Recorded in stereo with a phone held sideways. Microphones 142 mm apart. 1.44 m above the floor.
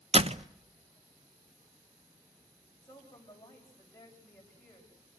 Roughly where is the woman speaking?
Centre.